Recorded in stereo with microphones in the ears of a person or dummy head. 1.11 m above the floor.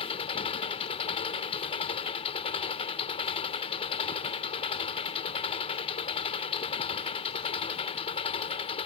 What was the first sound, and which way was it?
An engine running, 40° left (ahead or behind).